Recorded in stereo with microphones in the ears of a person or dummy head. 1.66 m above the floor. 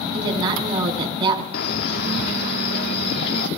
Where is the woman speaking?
25° right (ahead or behind), 4.5 m.